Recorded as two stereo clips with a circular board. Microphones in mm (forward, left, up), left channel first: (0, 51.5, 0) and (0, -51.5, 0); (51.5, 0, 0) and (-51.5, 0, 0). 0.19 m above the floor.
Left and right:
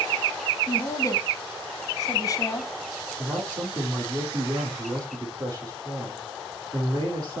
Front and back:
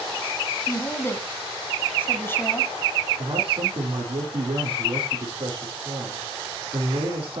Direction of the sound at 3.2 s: 145° right.